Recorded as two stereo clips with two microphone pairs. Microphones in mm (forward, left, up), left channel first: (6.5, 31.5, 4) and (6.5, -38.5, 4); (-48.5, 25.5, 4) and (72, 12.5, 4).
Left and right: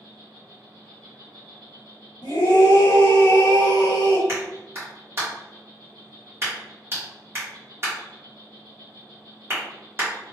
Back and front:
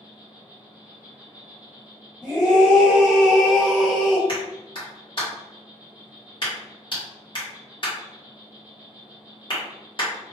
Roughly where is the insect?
Right.